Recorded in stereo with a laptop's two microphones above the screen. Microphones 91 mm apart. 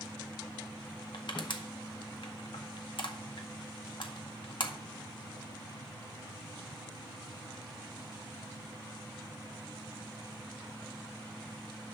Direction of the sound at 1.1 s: 65° left (ahead or behind).